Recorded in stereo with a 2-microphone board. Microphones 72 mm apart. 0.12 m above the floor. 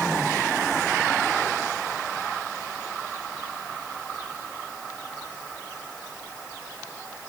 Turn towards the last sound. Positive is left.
No sound to turn to.